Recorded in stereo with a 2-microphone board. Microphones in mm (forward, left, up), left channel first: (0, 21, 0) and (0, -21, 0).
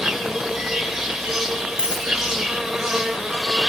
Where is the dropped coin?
15° right (ahead or behind), 7 m.